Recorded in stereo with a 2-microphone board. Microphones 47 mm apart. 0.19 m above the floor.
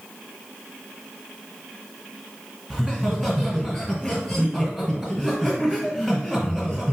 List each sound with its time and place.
2.7 s laughter: centre (ahead or behind), 1.5 m